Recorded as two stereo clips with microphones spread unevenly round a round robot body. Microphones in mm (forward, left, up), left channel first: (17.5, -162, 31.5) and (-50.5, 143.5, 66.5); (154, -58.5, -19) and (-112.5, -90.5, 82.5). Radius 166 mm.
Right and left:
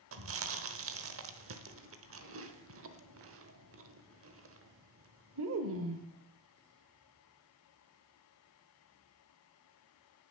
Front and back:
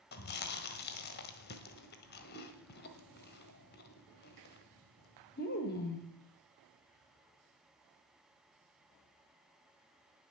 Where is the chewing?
50° left, 1.2 m.